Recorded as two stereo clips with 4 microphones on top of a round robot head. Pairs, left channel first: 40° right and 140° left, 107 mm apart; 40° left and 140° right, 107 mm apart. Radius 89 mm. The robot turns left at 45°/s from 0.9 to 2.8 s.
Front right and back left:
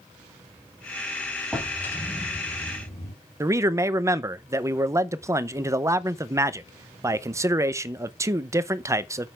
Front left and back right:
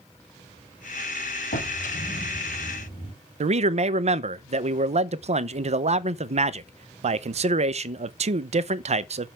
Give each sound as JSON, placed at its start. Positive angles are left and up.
{"t": 1.5, "sound": "a drawer", "azimuth_deg": 50, "distance_m": 3.5}
{"t": 3.4, "sound": "a man speaking", "azimuth_deg": -155, "distance_m": 0.6}